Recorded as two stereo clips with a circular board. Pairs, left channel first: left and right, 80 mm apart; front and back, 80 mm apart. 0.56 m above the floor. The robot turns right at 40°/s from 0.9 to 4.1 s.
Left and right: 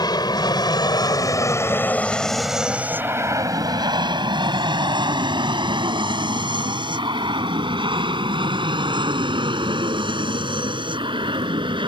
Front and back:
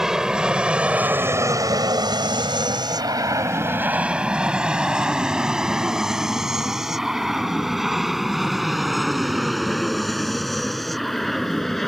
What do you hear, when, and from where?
0.0 s an aircraft: 95° left; by 11.9 s 85° right